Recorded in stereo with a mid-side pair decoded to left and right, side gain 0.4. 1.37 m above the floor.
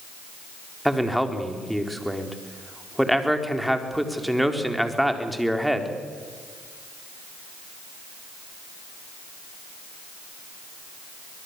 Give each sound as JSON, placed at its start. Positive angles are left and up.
{"t": 0.8, "sound": "a man speaking", "azimuth_deg": 0, "distance_m": 4.0}